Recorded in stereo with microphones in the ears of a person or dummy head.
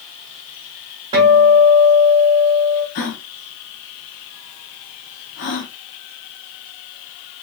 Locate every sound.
1.1 s a guitar: 20° right (ahead or behind), 1.3 m
3.0 s a gasp: 45° left (ahead or behind), 0.6 m